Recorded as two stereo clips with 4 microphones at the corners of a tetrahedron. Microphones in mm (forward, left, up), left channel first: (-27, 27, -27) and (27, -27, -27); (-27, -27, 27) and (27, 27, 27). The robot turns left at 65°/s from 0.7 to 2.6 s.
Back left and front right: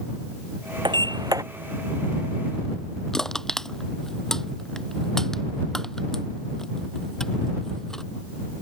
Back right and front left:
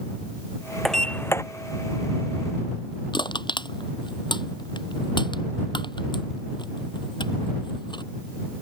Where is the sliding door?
45° right; by 1.4 s 85° right.